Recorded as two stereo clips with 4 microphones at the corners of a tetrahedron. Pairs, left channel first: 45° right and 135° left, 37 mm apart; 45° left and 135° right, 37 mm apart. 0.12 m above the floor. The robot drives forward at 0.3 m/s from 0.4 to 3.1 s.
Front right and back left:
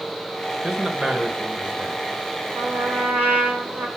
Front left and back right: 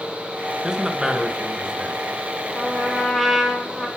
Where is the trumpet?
120° left, 1.7 m; by 3.9 s 125° left, 1.8 m.